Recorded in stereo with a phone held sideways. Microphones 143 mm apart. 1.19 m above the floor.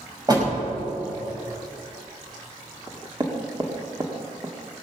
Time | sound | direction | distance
0.3 | a door slam | 30° right (ahead or behind) | 5.5 m
2.9 | knocking | 30° right (ahead or behind) | 1.8 m